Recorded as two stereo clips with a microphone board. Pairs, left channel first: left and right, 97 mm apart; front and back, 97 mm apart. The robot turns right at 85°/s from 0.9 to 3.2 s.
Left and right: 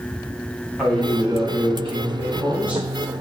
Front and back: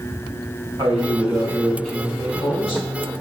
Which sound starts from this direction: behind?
A man speaking, at 0.8 s.